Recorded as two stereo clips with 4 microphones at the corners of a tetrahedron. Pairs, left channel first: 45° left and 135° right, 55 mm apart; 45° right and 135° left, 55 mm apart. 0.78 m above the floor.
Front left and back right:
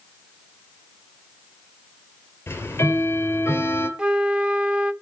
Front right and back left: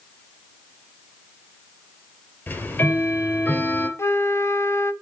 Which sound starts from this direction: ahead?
Ticking, at 2.5 s.